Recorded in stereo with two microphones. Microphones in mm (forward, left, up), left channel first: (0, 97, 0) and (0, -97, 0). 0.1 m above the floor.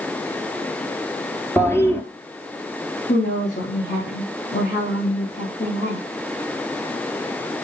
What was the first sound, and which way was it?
A toilet flushing, 10° left (ahead or behind).